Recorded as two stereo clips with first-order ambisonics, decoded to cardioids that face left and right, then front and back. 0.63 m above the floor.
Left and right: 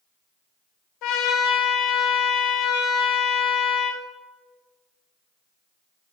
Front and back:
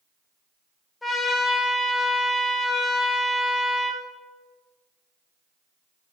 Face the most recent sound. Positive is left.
turn(degrees=80)